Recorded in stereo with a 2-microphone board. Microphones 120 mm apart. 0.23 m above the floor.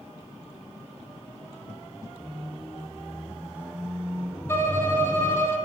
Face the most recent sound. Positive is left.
turn(degrees=20)  # may be behind; listen again after turning